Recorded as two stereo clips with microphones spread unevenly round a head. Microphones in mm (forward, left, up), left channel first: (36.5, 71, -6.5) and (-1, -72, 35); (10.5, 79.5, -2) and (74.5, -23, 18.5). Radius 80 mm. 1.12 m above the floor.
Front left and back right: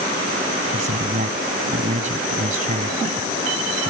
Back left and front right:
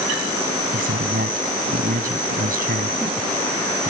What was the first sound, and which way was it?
A man speaking, 65° right.